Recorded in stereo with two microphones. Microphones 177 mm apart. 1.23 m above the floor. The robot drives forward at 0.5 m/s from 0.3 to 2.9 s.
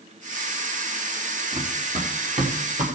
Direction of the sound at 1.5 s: 55° right (ahead or behind).